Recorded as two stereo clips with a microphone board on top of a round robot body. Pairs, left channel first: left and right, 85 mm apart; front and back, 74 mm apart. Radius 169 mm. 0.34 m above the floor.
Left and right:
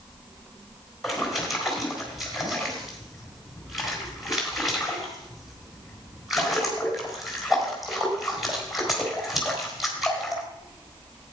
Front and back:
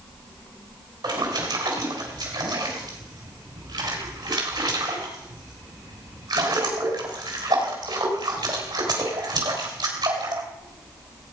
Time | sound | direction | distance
1.0 | a splash | straight behind | 3.5 m